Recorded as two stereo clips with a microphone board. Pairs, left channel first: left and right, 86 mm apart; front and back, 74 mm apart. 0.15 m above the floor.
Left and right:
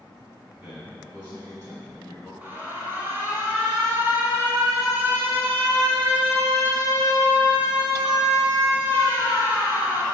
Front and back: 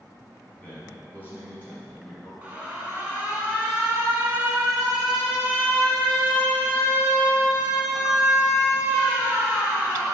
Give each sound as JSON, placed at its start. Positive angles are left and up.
{"t": 0.5, "sound": "a man speaking", "azimuth_deg": -20, "distance_m": 1.5}
{"t": 2.4, "sound": "an alarm", "azimuth_deg": -130, "distance_m": 0.9}